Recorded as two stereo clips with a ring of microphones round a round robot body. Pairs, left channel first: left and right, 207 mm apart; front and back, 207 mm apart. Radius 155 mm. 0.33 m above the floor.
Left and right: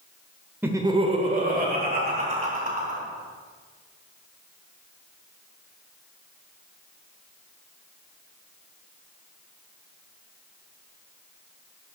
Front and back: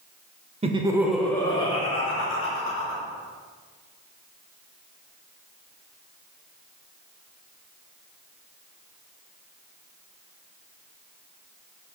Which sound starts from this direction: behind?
Laughter, at 0.6 s.